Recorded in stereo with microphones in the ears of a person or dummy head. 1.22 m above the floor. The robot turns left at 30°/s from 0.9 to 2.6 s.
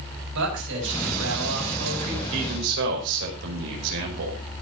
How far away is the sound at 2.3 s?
About 5.5 m.